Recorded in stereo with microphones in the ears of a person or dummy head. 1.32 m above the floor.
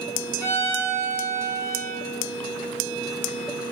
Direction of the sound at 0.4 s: 15° left (ahead or behind).